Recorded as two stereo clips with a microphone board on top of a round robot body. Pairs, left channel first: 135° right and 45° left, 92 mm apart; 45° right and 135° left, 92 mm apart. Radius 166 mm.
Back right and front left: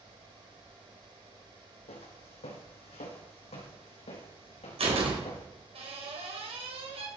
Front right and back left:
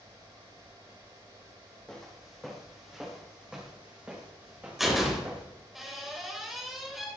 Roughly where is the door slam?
Ahead left.